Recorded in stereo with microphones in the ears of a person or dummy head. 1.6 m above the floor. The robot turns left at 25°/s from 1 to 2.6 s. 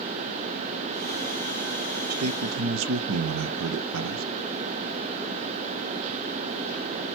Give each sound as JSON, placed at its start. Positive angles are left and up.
{"t": 2.1, "sound": "a man speaking", "side_deg": -75, "distance_m": 0.8}